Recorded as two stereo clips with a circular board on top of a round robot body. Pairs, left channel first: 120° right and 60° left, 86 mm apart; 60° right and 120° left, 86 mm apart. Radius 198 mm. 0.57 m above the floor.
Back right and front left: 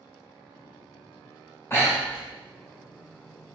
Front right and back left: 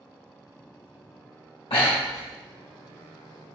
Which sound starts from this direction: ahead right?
Breathing, at 1.7 s.